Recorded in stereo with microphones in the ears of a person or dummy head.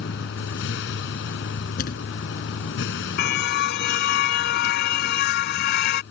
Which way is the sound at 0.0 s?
65° left (ahead or behind).